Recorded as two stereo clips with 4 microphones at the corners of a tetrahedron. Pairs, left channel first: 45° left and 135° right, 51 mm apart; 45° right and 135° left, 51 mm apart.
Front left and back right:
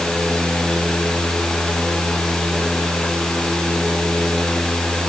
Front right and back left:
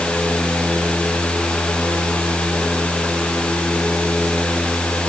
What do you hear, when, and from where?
Only background noise.